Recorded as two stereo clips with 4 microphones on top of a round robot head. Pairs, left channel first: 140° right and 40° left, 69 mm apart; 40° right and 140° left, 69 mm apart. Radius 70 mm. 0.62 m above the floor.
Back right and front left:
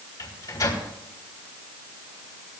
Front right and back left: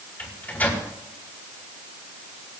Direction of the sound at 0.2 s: 105° right.